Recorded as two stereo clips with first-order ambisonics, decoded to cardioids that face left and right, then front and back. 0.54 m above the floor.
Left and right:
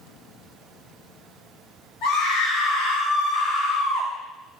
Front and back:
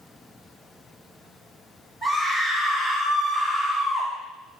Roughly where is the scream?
Left.